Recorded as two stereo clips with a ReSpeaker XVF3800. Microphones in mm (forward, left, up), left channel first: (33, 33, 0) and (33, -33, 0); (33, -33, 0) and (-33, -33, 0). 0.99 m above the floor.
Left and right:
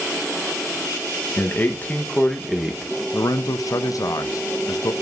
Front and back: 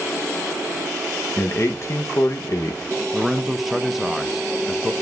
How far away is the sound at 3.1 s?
About 0.5 m.